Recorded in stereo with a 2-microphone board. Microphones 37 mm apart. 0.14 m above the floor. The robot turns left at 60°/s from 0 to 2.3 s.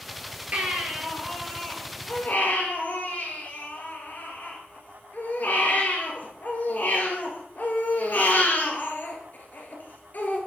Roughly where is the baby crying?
Behind right.